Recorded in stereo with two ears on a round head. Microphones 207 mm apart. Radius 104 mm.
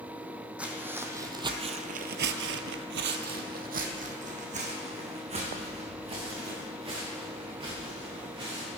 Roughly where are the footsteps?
Centre.